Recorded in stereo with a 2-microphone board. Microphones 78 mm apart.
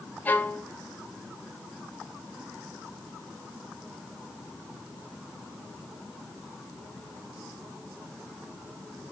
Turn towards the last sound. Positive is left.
turn(degrees=20)  # may be behind; listen again after turning